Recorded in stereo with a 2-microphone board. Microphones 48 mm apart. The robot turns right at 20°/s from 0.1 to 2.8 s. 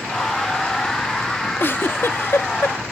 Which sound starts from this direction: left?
A giggle, at 1.6 s.